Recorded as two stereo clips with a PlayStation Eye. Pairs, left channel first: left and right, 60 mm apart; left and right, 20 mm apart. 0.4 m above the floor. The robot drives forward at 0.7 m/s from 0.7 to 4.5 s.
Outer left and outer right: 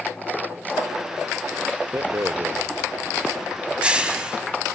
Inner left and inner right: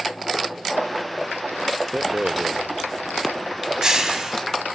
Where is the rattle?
50° right (ahead or behind), 0.6 m; by 4.4 s 15° right (ahead or behind), 1.7 m.